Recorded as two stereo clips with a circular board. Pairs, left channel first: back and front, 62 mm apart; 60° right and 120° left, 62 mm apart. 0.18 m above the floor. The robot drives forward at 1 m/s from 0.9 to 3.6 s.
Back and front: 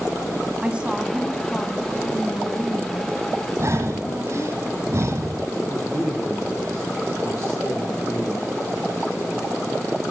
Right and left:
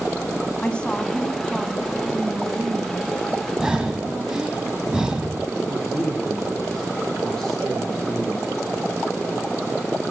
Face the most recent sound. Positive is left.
turn(degrees=-145)